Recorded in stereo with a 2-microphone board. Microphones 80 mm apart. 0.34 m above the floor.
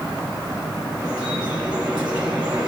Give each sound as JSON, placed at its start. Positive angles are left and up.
{"t": 1.0, "sound": "dripping", "side_deg": -10, "distance_m": 2.0}